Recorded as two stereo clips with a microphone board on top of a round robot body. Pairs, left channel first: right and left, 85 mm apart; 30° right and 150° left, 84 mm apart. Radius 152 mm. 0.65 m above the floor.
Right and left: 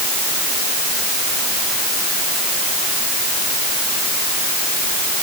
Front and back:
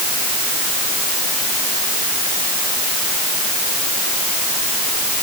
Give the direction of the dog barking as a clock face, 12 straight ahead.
No dog barking in this recording.